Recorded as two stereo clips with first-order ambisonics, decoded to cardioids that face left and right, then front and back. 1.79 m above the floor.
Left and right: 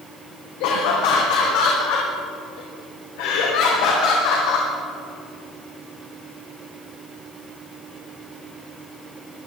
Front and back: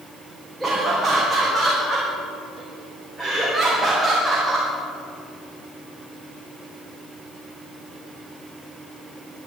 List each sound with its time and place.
0.6 s laughter: 90° left, 1.8 m